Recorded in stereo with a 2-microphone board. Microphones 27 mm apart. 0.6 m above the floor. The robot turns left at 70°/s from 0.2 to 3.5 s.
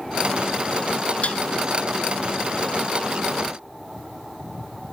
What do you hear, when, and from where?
1.2 s dishes clattering: 55° left (ahead or behind); by 1.4 s 45° left (ahead or behind)